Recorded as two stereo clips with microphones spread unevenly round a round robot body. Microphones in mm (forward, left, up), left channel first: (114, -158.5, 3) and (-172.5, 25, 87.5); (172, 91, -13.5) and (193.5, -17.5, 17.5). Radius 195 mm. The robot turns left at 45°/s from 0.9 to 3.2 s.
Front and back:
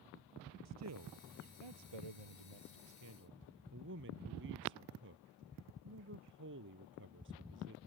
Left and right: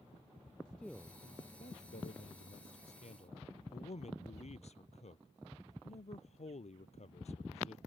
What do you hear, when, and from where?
0.7 s a man speaking: 170° right; by 7.8 s 85° left